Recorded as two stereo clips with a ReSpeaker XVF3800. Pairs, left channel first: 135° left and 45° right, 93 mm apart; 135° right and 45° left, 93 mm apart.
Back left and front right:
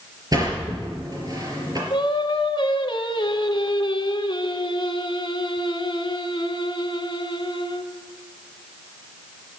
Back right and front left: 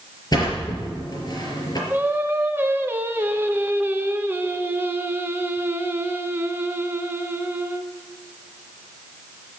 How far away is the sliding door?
About 4.5 m.